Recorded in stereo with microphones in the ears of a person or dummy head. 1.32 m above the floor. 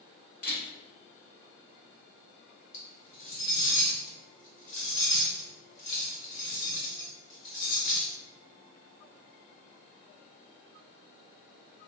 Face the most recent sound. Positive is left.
turn(degrees=65)  # may be behind; listen again after turning